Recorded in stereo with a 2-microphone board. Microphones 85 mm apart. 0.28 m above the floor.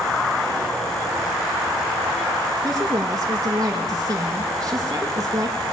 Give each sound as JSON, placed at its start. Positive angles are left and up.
{"t": 2.6, "sound": "a woman speaking", "side_deg": -40, "distance_m": 5.0}